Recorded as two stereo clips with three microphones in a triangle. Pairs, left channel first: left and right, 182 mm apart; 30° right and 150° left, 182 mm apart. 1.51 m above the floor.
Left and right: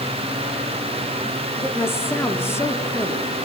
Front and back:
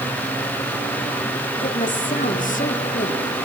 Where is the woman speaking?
15° left, 4 m.